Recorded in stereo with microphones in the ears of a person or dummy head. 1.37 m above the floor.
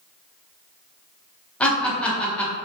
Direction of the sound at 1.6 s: 5° left (ahead or behind).